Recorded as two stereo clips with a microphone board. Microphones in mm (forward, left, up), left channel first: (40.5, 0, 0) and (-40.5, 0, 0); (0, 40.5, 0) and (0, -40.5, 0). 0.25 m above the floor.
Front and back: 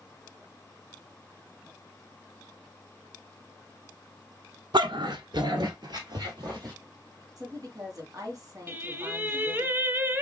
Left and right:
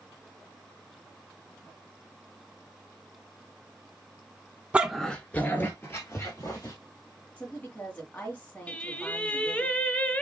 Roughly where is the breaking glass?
I don't hear breaking glass.